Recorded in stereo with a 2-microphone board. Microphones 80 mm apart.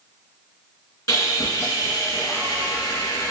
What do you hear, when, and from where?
1.1 s sawing: 45° left (ahead or behind), 2.5 m